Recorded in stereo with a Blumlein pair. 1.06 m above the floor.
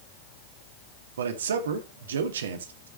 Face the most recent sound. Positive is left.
turn(degrees=-65)